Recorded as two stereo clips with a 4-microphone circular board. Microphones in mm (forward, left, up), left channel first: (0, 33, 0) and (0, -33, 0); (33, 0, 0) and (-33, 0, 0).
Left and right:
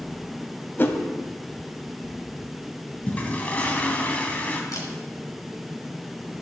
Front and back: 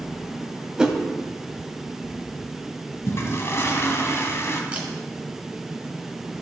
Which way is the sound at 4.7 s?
110° left.